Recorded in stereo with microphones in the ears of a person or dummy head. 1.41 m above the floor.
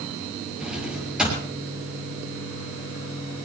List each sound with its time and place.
0.6 s a drawer: 5° right (ahead or behind), 7 m